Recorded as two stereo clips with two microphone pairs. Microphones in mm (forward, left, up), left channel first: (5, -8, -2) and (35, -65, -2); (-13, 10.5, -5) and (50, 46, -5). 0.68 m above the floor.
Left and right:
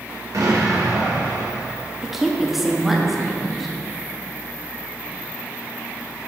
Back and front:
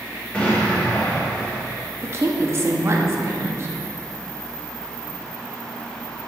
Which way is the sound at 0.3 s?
80° right.